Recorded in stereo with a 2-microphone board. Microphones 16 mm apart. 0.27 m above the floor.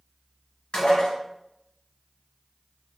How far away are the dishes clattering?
About 2.5 m.